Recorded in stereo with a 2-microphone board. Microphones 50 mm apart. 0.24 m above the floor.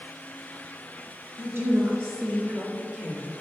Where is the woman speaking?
50° right (ahead or behind), 3.5 m; by 3.3 s 25° right (ahead or behind), 4 m.